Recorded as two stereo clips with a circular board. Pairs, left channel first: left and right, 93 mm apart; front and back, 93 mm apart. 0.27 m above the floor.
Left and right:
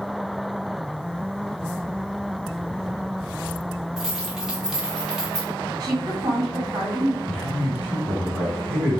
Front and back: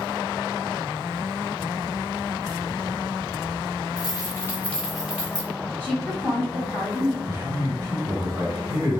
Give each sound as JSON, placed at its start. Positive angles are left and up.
{"t": 4.0, "sound": "keys jangling", "azimuth_deg": -10, "distance_m": 1.3}
{"t": 5.8, "sound": "a woman speaking", "azimuth_deg": -60, "distance_m": 1.6}
{"t": 7.3, "sound": "a man speaking", "azimuth_deg": 170, "distance_m": 1.2}